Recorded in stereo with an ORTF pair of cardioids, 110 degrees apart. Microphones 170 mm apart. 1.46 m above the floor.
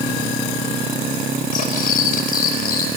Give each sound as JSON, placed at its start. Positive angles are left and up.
{"t": 1.5, "sound": "cutlery clinking", "azimuth_deg": 55, "distance_m": 4.0}